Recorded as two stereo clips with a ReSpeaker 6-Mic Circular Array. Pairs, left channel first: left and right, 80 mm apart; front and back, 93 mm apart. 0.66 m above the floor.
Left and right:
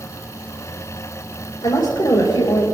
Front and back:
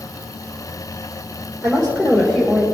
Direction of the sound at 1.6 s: 75° left.